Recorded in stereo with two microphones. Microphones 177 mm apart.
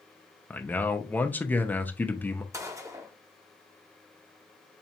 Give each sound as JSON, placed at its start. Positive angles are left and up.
{"t": 0.5, "sound": "a man speaking", "side_deg": 10, "distance_m": 0.5}
{"t": 2.5, "sound": "a gunshot", "side_deg": -15, "distance_m": 0.7}